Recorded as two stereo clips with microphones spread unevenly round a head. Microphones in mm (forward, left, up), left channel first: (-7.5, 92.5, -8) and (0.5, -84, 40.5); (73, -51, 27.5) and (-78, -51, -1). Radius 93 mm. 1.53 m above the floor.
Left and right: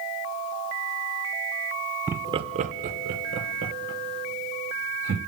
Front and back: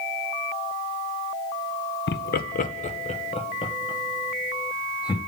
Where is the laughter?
5° right, 0.6 m; by 5.2 s 65° right, 2.5 m.